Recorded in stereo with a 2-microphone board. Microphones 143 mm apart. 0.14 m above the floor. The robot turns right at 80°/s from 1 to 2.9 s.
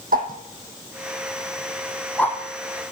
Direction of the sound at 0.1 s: 80° right.